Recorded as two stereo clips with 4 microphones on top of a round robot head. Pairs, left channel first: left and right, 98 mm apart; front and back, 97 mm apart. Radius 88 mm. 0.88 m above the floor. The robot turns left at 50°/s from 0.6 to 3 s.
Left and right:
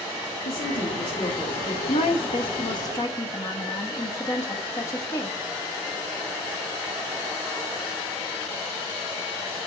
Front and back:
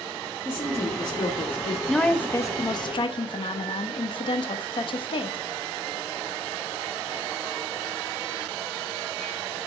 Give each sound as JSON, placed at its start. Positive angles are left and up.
{"t": 0.5, "sound": "a woman speaking", "azimuth_deg": 65, "distance_m": 1.3}
{"t": 1.9, "sound": "a woman speaking", "azimuth_deg": 85, "distance_m": 0.9}